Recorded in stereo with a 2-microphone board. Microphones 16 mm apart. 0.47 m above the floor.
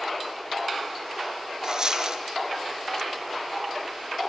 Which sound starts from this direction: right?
A dropped coin, at 1.6 s.